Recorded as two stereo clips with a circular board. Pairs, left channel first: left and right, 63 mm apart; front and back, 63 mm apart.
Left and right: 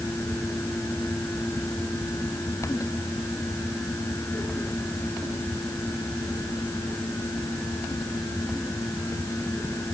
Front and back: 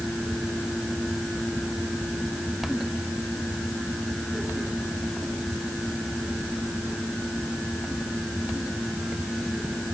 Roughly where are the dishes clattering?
I don't hear dishes clattering.